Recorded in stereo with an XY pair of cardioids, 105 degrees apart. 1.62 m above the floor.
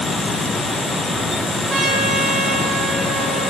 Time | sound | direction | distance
0.0 | a fan | 20° left | 1.6 m
1.7 | a trumpet | 35° right | 1.5 m